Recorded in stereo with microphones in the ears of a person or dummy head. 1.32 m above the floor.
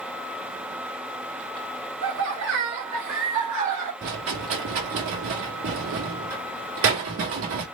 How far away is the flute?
I don't hear a flute.